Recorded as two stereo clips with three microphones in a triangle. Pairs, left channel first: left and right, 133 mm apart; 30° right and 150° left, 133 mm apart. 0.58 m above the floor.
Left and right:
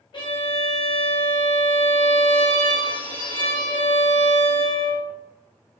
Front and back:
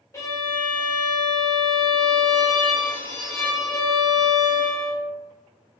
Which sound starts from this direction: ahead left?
A violin, at 0.1 s.